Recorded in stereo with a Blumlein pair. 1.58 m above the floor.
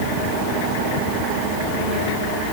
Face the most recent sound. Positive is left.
No sound to turn to.